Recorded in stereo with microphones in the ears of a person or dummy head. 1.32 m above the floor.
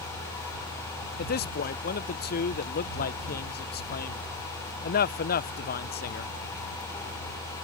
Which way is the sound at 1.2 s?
45° left (ahead or behind).